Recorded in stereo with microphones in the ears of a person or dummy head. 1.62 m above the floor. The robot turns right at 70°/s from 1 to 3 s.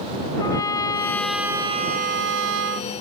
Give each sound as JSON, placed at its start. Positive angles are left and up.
{"t": 0.4, "sound": "a trumpet", "azimuth_deg": 160}